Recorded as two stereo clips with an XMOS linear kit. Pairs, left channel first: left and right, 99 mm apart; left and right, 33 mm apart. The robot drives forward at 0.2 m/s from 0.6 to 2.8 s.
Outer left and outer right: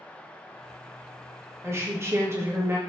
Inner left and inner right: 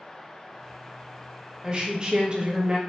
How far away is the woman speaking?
About 0.7 m.